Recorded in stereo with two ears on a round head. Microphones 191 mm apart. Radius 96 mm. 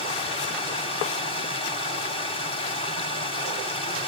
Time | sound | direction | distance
0.0 | running water | 25° left (ahead or behind) | 2 m